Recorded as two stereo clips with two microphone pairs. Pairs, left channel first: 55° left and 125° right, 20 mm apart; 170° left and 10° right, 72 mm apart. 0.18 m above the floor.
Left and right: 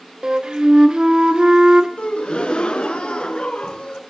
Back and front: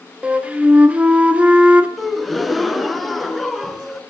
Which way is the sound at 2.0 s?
80° left.